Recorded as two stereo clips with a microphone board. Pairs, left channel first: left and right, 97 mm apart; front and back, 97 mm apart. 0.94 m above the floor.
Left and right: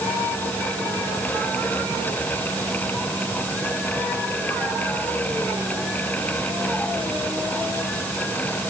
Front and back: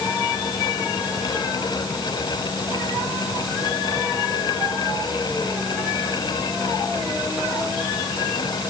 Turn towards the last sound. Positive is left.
No sound to turn to.